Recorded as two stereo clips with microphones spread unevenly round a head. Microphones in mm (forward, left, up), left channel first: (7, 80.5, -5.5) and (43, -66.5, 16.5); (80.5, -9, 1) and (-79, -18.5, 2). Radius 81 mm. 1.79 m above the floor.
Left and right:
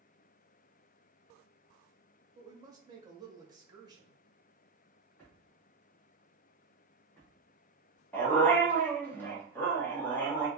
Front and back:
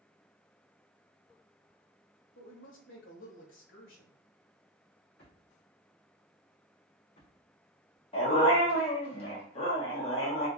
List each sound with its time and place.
2.4 s a woman speaking: 10° right, 1.8 m
5.2 s a drawer: 20° left, 2.5 m
8.1 s a dog barking: 20° left, 1.4 m